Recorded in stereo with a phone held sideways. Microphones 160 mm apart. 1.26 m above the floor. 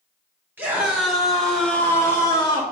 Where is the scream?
15° right (ahead or behind), 3 m; by 2.6 s 25° left (ahead or behind), 3 m.